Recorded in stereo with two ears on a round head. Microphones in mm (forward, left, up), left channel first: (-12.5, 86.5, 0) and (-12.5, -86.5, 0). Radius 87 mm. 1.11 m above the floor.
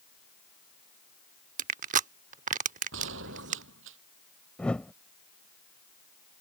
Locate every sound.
1.6 s crushing: 40° right (ahead or behind)
2.9 s a gunshot: 70° right (ahead or behind)
4.6 s a whoosh: 5° left (ahead or behind)